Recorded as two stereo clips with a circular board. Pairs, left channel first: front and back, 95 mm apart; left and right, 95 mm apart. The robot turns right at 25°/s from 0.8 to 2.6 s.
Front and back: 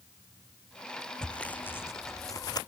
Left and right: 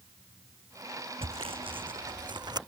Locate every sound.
1.2 s sawing: 80° right; by 2.6 s 45° right